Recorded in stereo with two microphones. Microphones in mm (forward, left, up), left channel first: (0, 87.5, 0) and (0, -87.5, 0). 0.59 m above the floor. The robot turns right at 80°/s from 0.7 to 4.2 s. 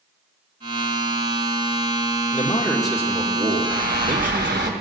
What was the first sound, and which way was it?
A man speaking, 140° left.